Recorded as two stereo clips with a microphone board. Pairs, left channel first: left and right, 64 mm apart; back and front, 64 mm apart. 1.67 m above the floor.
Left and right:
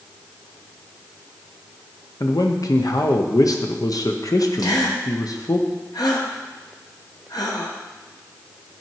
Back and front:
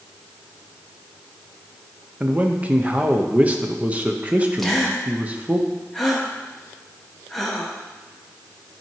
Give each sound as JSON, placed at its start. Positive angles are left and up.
{"t": 2.2, "sound": "a man speaking", "azimuth_deg": 70, "distance_m": 0.9}
{"t": 4.6, "sound": "a gasp", "azimuth_deg": 95, "distance_m": 1.2}